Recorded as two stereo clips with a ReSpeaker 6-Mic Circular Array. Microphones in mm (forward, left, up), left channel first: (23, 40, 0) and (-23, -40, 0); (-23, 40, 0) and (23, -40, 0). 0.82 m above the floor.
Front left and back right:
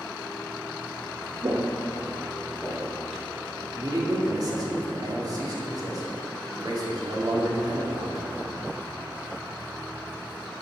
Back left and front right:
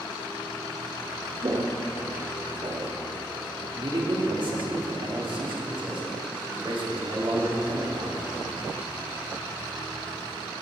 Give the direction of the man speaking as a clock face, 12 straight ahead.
3 o'clock.